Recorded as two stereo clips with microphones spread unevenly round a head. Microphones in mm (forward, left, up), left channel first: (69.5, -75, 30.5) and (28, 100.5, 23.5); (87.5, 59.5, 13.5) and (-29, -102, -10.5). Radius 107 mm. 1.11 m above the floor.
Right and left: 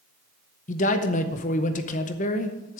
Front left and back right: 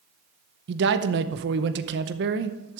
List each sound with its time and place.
0.7 s a man speaking: 125° right, 0.8 m